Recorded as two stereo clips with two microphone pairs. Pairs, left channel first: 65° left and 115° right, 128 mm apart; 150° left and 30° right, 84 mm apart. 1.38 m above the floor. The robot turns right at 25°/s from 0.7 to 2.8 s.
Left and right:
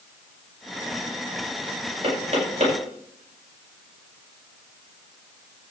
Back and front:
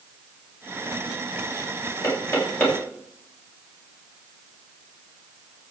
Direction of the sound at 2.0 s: 160° right.